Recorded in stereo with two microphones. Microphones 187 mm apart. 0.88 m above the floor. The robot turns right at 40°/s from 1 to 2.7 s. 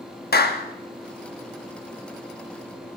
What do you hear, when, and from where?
0.3 s a clap: 55° left (ahead or behind), 0.8 m